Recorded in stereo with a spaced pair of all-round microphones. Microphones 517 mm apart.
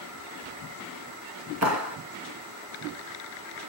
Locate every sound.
1.6 s a clap: 30° right (ahead or behind), 1.2 m